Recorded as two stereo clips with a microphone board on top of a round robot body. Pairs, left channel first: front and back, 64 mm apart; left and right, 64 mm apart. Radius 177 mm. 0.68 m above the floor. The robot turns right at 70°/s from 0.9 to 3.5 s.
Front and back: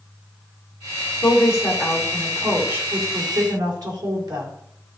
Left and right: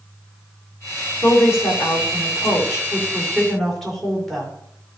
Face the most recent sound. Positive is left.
turn(degrees=175)